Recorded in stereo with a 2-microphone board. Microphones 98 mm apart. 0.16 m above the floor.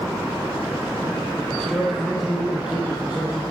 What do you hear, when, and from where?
1.5 s a man speaking: 15° left (ahead or behind), 1.1 m; by 3.4 s 15° right (ahead or behind), 2 m